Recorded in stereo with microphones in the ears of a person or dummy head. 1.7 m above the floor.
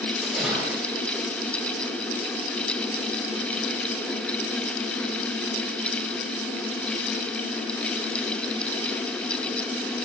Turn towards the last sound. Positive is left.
turn(degrees=-5)  # may be behind; listen again after turning